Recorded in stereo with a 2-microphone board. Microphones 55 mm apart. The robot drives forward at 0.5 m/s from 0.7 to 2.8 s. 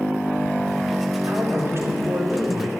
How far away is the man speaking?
About 3.5 m.